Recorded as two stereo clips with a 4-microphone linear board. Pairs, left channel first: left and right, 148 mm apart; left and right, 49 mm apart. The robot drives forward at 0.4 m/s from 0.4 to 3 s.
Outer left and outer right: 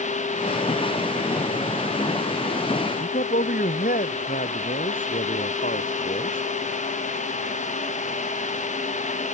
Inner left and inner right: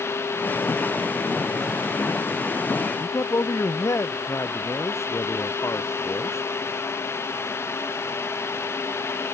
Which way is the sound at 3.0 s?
70° left (ahead or behind).